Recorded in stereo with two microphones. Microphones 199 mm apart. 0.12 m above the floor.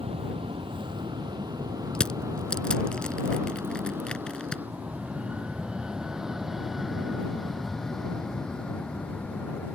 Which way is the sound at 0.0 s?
30° right (ahead or behind).